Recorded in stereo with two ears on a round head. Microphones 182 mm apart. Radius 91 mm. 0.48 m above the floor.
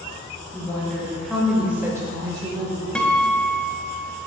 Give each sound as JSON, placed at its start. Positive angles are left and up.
{"t": 0.5, "sound": "a woman speaking", "side_deg": 10, "distance_m": 1.7}
{"t": 3.0, "sound": "a guitar", "side_deg": 5, "distance_m": 0.6}